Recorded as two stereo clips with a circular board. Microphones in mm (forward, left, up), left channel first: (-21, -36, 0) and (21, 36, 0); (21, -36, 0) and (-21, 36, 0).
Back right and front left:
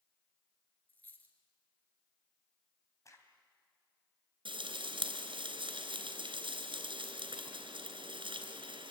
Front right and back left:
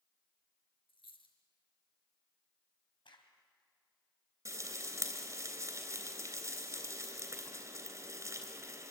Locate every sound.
0.9 s a dropped coin: 50° right, 3.5 m
3.0 s a crack: 70° right, 3 m
4.5 s frying: 70° left, 3 m